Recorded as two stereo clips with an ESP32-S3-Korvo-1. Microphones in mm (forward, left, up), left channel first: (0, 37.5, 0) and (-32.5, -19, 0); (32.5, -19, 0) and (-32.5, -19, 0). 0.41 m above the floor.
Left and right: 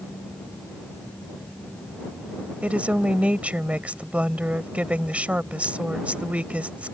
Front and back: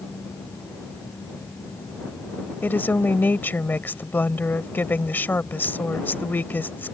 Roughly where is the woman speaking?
Ahead right.